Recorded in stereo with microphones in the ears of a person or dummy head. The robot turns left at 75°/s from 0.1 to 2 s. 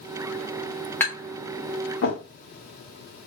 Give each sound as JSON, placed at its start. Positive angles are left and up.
{"t": 1.0, "sound": "tapping", "side_deg": 15, "distance_m": 1.5}